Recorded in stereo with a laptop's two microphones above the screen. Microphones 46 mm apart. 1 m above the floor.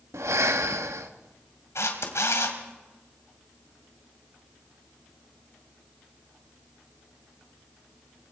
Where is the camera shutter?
70° left (ahead or behind), 2.5 m.